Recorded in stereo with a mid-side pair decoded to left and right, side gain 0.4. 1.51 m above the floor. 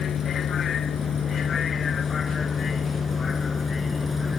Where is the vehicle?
65° left; by 4.4 s 40° left.